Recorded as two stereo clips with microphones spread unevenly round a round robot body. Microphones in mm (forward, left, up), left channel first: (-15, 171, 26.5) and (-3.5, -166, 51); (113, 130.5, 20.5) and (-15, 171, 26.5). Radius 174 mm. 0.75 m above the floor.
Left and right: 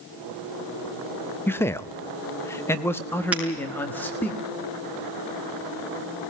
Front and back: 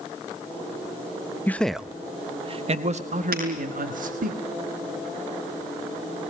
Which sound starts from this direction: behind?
Breaking glass, at 3.3 s.